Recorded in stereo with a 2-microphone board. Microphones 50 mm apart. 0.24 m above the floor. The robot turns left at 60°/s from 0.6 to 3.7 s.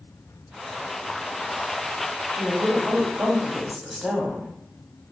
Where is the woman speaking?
95° right, 1.1 m; by 4.5 s 175° right, 1.1 m.